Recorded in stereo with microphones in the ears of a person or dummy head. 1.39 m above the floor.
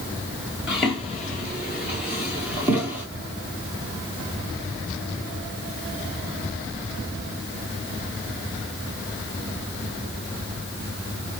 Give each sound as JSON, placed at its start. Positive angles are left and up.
{"t": 0.7, "sound": "footsteps", "side_deg": -5, "distance_m": 1.4}